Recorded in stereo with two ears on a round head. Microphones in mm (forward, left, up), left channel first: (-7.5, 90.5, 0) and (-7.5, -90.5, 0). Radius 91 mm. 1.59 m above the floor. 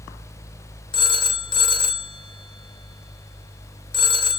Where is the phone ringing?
25° left (ahead or behind), 0.5 m.